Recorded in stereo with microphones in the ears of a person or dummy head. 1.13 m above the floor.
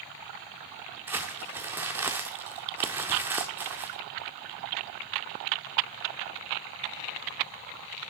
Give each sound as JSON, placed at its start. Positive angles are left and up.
{"t": 1.1, "sound": "crumpling", "side_deg": -10, "distance_m": 0.7}